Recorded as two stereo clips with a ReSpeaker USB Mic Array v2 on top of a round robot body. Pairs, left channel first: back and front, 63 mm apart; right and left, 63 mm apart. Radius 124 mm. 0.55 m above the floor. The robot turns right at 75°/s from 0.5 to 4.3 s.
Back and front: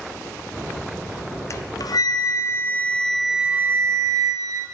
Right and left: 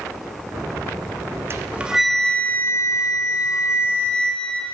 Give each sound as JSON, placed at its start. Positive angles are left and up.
{"t": 1.5, "sound": "a flute", "azimuth_deg": 140, "distance_m": 0.7}